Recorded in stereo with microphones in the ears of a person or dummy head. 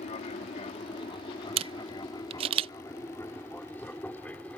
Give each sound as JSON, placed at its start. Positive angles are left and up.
{"t": 0.0, "sound": "an aircraft", "side_deg": 35}
{"t": 1.6, "sound": "a camera shutter", "side_deg": -35}